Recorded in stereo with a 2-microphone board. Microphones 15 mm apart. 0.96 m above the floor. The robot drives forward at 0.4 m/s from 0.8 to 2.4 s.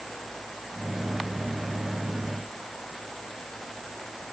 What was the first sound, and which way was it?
Only background noise.